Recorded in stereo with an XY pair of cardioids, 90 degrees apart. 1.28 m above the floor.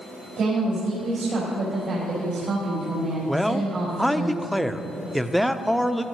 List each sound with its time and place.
0.4 s a woman speaking: 65° right, 4.5 m
3.3 s a man speaking: 5° right, 0.7 m